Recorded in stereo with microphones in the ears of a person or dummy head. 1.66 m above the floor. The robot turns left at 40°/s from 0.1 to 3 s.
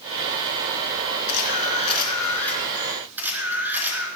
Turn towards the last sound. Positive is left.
turn(degrees=-10)